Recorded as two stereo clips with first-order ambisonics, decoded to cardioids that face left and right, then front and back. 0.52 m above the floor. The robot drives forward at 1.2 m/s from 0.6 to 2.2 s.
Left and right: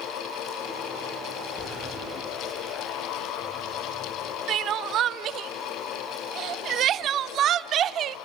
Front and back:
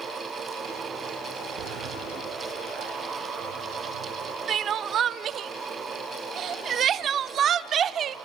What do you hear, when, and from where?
1.6 s a sliding door: 160° left, 2.5 m; by 4.4 s 165° left, 3 m
4.5 s crying: 130° right, 0.5 m